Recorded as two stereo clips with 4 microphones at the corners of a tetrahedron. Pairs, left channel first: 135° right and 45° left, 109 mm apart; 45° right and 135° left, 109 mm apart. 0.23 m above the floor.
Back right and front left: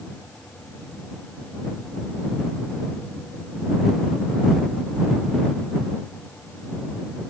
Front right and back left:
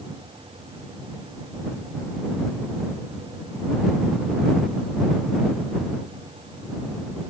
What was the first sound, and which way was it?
Only background noise.